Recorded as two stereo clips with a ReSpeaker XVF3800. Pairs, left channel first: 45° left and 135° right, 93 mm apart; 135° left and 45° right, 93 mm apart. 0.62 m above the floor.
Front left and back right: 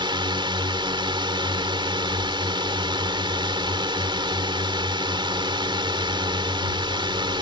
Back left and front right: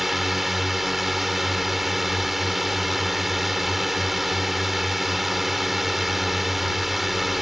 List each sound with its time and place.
0.0 s a drone: 135° right